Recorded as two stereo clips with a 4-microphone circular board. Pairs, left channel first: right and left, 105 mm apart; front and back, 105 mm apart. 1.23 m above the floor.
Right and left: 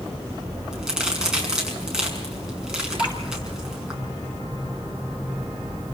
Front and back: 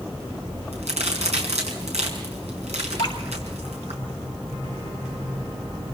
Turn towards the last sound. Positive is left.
turn(degrees=-45)